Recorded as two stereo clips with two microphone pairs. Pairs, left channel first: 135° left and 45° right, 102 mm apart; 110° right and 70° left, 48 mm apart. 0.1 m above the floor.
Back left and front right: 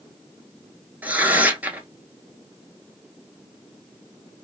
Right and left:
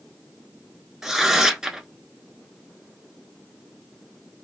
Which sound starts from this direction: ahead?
Tearing paper, at 1.0 s.